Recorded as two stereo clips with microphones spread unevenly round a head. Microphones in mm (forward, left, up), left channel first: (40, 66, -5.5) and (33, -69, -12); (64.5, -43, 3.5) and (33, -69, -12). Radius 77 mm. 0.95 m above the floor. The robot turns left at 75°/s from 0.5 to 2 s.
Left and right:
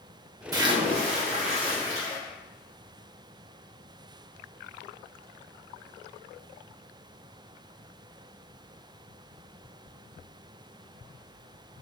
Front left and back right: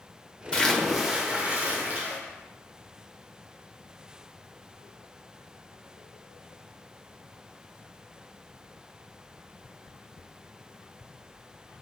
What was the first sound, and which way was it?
A splash, 40° right.